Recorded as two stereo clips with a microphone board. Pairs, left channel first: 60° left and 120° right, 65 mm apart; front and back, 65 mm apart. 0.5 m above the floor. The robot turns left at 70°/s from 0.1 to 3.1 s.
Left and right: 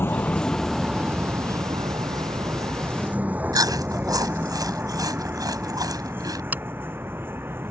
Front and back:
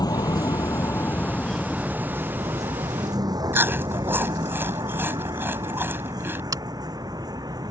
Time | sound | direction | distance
0.0 | a vehicle | 5° left | ?
3.5 | chewing | 125° right | ?
6.5 | scissors | straight behind | ?